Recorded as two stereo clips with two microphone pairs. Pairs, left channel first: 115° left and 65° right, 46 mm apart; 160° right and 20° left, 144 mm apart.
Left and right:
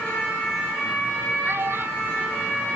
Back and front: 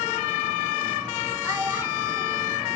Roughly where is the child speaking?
Ahead right.